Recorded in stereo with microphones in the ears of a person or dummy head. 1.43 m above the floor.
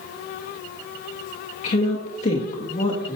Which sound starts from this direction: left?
A woman speaking, at 1.6 s.